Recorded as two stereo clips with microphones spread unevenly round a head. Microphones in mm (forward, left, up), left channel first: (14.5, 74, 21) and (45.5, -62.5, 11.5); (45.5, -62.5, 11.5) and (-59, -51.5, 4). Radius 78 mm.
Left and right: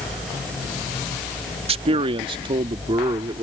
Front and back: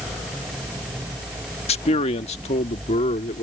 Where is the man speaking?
30° right; by 3.4 s 15° right.